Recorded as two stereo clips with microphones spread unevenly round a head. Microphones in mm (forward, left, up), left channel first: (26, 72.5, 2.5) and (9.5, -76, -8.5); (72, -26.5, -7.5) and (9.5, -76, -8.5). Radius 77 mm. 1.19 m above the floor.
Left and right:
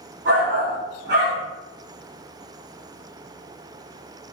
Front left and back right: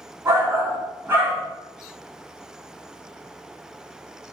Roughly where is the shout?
Right.